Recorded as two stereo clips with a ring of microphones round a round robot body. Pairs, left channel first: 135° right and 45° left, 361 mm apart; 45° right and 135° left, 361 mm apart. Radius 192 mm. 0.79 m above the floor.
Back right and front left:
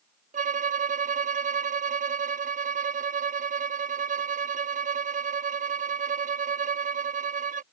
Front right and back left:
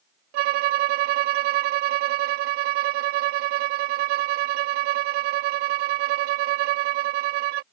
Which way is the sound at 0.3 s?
115° left.